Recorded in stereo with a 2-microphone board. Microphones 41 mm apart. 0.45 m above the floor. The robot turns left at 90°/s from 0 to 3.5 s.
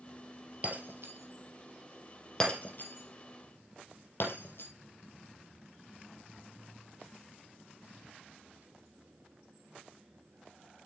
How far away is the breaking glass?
About 3 m.